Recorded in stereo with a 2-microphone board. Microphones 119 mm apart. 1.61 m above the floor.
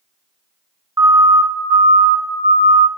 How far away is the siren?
About 2 m.